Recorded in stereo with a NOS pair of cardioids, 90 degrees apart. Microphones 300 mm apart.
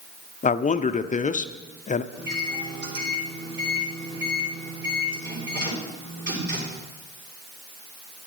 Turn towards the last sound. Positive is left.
turn(degrees=-40)